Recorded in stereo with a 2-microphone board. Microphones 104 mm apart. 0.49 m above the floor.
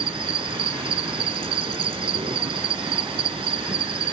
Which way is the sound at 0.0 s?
65° right (ahead or behind).